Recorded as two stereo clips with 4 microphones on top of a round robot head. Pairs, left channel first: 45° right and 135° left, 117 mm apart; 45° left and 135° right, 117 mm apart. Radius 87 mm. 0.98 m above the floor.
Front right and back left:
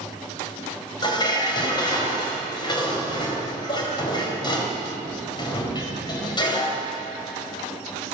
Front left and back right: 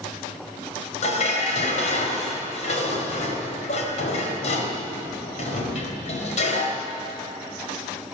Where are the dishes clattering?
10° left, 4 m.